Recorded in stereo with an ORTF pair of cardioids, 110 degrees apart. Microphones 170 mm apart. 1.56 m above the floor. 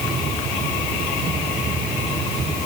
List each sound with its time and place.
Only background noise.